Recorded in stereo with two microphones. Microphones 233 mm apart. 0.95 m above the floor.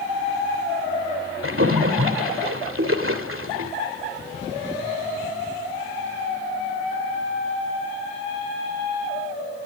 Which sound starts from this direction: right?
A splash, at 1.4 s.